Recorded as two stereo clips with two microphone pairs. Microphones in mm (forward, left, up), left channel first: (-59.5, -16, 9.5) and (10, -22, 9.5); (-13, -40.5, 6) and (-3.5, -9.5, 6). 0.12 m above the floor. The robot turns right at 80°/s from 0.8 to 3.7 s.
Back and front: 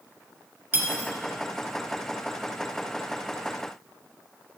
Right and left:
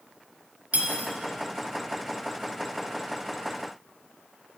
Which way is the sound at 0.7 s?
45° left.